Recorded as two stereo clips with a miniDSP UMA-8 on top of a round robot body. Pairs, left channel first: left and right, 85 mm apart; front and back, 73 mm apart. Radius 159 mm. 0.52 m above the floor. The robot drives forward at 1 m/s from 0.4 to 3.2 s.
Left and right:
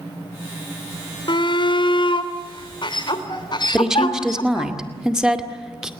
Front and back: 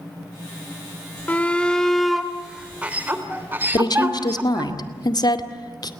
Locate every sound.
1.3 s a shout: 70° left, 2.5 m; by 4.7 s 115° left, 2.5 m
3.7 s a woman speaking: 5° right, 2.5 m